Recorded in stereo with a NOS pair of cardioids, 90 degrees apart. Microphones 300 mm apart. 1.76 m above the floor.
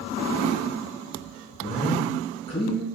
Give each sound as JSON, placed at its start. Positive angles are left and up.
{"t": 1.6, "sound": "a man speaking", "azimuth_deg": 20, "distance_m": 2.0}